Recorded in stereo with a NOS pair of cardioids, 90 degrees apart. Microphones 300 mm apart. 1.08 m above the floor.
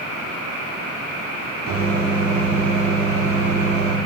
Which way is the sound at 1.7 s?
50° right.